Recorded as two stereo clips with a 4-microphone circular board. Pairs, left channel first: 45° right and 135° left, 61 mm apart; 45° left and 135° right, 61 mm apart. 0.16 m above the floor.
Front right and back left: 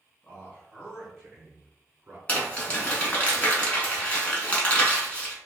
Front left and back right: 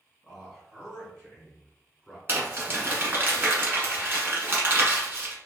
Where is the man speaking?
55° right, 1.6 m; by 2.2 s 130° left, 1.8 m.